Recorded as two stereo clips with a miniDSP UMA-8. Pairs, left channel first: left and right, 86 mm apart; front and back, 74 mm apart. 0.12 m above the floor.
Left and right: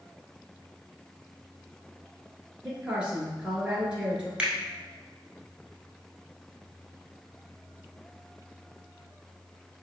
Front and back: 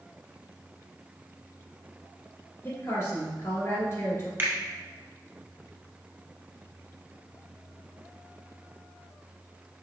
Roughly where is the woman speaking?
Ahead.